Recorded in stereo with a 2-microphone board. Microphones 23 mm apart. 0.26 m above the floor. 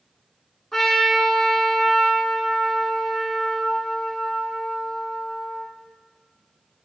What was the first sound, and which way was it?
A trumpet, 10° left (ahead or behind).